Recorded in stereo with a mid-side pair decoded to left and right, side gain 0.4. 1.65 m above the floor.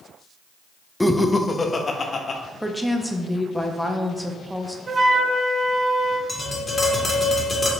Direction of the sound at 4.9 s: 45° right.